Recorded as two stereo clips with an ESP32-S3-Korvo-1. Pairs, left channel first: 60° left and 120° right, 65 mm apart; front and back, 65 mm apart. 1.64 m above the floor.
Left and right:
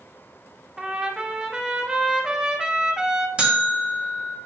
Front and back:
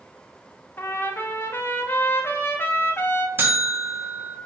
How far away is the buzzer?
About 1.7 m.